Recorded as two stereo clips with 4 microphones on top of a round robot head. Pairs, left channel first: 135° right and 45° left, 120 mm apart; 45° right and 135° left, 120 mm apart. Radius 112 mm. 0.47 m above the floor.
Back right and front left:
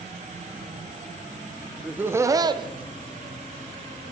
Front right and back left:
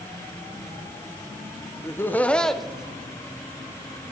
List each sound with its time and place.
1.8 s laughter: 25° right, 0.7 m; by 4.1 s 65° left, 1.4 m